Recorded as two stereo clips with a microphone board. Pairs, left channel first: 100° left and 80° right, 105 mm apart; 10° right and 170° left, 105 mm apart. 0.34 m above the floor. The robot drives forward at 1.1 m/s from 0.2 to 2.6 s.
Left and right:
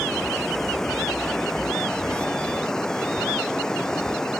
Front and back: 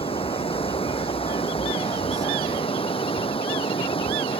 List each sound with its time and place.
0.0 s running water: 15° left